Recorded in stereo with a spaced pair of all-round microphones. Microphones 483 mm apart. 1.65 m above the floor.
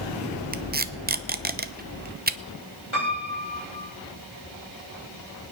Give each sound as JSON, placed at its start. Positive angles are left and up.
{"t": 0.5, "sound": "tape being pulled", "side_deg": -20, "distance_m": 0.7}
{"t": 2.9, "sound": "a piano", "side_deg": 70, "distance_m": 6.0}